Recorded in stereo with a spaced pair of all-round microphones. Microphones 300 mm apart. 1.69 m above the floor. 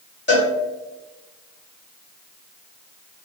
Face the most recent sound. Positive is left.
turn(degrees=35)  # may be behind; listen again after turning